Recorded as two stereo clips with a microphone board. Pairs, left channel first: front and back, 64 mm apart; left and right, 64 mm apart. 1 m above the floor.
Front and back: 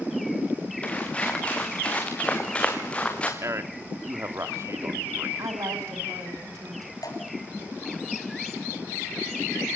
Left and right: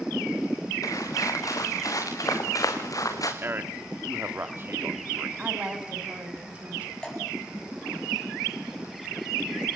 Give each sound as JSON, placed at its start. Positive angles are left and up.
{"t": 0.8, "sound": "footsteps", "azimuth_deg": 70, "distance_m": 6.0}
{"t": 3.4, "sound": "a man speaking", "azimuth_deg": -140, "distance_m": 2.5}
{"t": 5.4, "sound": "a woman speaking", "azimuth_deg": -160, "distance_m": 6.0}
{"t": 7.0, "sound": "dripping", "azimuth_deg": 15, "distance_m": 9.0}